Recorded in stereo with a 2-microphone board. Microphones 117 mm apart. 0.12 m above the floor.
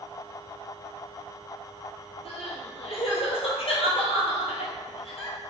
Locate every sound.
2.2 s crying: 55° left (ahead or behind), 0.8 m